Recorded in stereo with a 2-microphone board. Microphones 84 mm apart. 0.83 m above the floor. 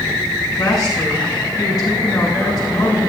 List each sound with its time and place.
0.6 s a woman speaking: 45° left (ahead or behind), 8 m